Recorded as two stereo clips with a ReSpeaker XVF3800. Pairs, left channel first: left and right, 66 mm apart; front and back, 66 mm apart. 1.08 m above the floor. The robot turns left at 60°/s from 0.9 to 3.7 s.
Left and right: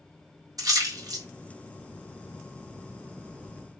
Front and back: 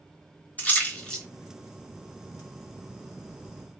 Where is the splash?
65° right, 1.3 m; by 1.2 s 90° right, 1.3 m.